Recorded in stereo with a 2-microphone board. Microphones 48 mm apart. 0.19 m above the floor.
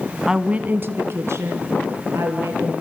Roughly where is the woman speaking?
Centre.